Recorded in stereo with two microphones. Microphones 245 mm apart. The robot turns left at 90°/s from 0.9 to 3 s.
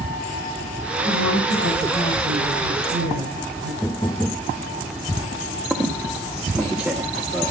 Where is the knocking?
10° left (ahead or behind), 0.7 m.